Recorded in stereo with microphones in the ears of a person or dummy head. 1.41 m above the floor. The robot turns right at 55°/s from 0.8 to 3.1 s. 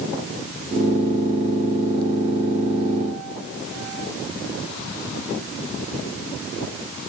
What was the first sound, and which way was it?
Only background noise.